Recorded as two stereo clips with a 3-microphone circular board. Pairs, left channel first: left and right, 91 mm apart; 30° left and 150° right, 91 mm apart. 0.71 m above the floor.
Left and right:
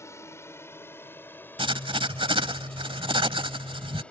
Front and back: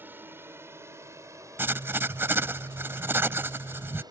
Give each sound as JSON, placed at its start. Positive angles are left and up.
{"t": 0.0, "sound": "a drone", "azimuth_deg": 145}
{"t": 1.6, "sound": "writing", "azimuth_deg": -85}